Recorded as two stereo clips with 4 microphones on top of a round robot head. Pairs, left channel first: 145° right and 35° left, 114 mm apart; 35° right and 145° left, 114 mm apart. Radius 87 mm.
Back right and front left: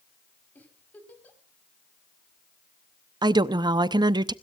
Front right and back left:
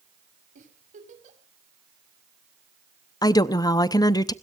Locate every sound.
0.6 s a giggle: 140° left, 4.5 m
3.2 s a woman speaking: 5° left, 0.8 m